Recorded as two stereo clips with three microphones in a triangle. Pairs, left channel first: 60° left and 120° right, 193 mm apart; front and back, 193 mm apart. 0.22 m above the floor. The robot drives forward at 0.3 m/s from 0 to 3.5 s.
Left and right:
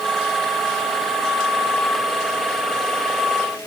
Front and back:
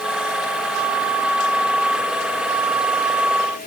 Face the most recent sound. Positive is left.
No sound to turn to.